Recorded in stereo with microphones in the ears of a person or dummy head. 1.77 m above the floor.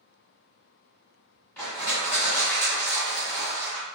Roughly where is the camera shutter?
I don't hear a camera shutter.